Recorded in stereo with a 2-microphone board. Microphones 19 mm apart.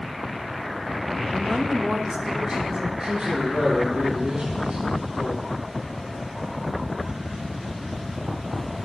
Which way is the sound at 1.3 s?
10° right (ahead or behind).